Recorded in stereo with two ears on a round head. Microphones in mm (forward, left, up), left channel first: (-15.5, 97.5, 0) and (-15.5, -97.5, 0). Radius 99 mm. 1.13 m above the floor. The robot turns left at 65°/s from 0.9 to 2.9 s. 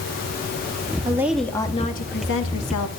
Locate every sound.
1.1 s a woman speaking: 160° right, 1.6 m; by 2.9 s 80° left, 1.6 m